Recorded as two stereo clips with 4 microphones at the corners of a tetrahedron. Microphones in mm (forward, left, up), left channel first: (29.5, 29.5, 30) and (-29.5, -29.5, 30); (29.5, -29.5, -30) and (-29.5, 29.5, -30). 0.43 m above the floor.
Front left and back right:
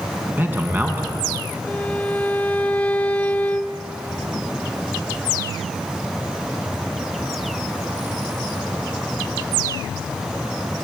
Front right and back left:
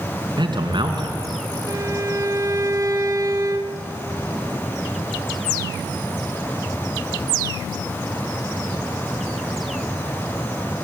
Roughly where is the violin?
Left.